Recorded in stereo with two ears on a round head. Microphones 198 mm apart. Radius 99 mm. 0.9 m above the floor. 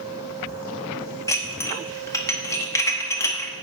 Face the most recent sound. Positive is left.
turn(degrees=15)  # may be behind; listen again after turning